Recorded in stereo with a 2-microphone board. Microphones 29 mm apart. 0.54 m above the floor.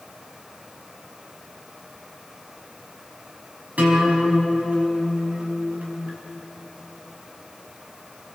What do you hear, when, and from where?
3.8 s a guitar: 65° right (ahead or behind), 5 m